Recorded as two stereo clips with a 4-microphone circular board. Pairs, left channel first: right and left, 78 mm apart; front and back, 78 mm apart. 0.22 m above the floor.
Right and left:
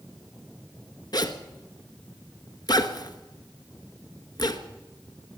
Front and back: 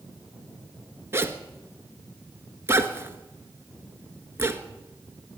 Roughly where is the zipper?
Behind right.